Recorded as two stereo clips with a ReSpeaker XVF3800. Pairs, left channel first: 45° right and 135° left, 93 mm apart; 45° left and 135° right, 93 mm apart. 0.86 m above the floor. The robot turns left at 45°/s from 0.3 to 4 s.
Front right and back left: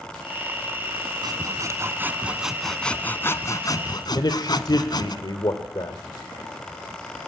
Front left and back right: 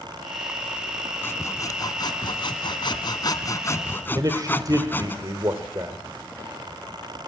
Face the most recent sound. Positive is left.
turn(degrees=-85)